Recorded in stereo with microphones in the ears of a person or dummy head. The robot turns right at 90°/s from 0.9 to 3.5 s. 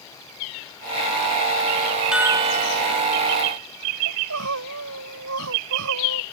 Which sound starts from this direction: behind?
A chime, at 2.1 s.